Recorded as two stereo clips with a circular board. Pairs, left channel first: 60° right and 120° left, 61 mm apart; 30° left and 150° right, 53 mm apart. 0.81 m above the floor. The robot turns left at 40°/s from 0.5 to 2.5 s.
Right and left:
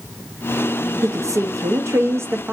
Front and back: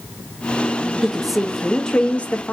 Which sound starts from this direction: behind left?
A woman speaking, at 1.0 s.